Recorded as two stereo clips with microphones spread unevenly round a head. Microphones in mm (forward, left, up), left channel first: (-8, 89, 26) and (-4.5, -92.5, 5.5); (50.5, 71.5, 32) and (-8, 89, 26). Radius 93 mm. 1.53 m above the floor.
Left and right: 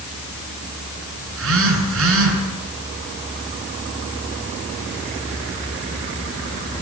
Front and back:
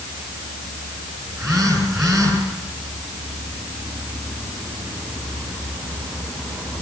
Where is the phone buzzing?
110° right, 9 m.